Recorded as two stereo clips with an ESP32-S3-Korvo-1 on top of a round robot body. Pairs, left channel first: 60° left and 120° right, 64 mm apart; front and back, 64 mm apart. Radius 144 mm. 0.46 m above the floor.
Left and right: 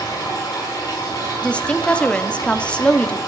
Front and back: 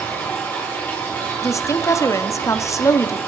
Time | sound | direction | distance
0.0 | running water | 60° left | 5 m
1.4 | a woman speaking | 10° right | 1.0 m